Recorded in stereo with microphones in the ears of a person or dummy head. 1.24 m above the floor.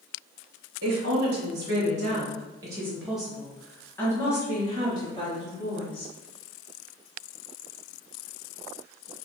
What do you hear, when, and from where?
0.8 s a woman speaking: 65° right (ahead or behind), 1.3 m; by 6.1 s 30° left (ahead or behind), 2.5 m